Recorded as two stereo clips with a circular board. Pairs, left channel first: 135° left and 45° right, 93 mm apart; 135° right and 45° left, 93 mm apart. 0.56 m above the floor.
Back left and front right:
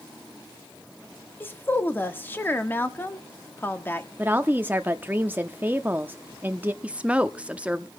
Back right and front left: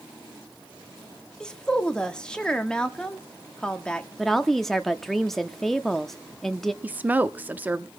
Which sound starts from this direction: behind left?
A woman speaking, at 1.4 s.